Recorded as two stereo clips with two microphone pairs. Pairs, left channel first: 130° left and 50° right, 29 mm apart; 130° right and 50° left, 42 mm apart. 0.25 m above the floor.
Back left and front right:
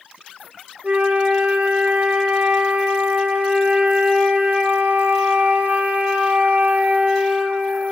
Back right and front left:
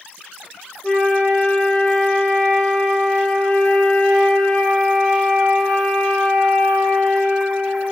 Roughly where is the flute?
Ahead right.